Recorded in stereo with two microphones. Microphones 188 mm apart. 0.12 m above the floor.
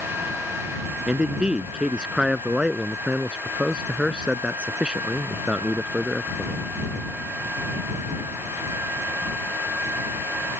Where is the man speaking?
5° right (ahead or behind).